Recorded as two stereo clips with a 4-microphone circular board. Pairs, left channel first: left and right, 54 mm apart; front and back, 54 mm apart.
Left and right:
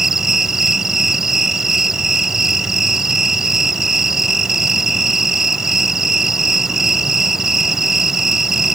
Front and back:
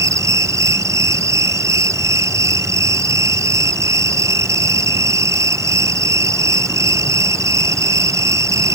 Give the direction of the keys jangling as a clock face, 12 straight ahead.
I don't hear keys jangling.